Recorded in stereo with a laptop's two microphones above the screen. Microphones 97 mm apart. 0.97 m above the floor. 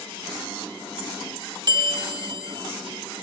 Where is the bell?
45° right (ahead or behind), 0.9 m.